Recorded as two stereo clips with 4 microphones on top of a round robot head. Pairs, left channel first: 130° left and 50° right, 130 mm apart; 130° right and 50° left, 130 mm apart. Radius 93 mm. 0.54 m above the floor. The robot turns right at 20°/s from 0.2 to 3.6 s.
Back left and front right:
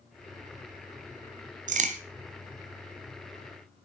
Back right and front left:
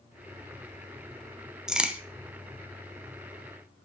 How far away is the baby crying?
I don't hear a baby crying.